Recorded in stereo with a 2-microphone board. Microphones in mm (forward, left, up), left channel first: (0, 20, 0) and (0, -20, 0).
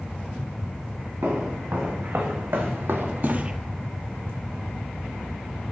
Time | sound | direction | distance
1.2 | footsteps | 80° right | 3.5 m